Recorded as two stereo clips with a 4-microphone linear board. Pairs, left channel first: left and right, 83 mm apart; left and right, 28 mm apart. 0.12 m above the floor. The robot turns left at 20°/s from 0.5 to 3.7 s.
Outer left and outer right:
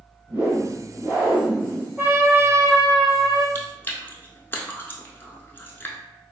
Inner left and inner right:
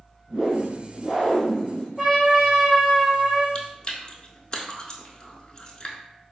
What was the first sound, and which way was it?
A whoosh, 30° right (ahead or behind).